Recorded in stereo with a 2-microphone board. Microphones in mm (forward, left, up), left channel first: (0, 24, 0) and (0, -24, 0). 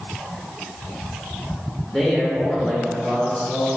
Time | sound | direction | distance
1.8 | a man speaking | 5° left (ahead or behind) | 1.0 m